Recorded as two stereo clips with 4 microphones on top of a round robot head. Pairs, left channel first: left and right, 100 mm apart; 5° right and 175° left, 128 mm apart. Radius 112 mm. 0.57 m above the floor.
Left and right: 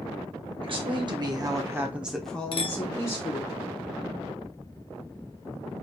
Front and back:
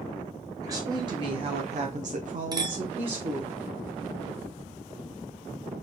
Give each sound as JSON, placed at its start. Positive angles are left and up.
{"t": 0.6, "sound": "a woman speaking", "azimuth_deg": -120, "distance_m": 2.0}
{"t": 2.5, "sound": "a clink", "azimuth_deg": 120, "distance_m": 1.2}